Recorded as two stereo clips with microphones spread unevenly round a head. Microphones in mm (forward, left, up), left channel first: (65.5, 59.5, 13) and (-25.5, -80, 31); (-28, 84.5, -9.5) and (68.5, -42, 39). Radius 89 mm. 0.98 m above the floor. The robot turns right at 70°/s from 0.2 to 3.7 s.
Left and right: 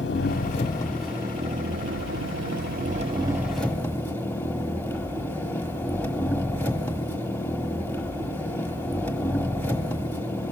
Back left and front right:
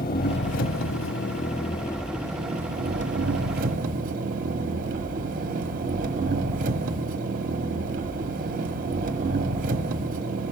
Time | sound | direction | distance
0.0 | an engine running | 90° left | 1.1 m